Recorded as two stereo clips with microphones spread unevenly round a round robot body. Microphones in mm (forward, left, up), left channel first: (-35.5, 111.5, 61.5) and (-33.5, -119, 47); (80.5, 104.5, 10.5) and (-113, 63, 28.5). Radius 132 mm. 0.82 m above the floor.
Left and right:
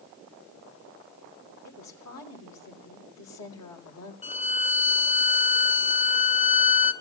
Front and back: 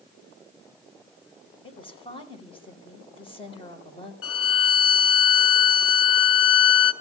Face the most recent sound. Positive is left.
turn(degrees=25)